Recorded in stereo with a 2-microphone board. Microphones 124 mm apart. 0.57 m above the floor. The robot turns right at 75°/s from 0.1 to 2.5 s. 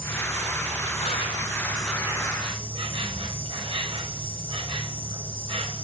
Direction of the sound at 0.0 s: 50° left.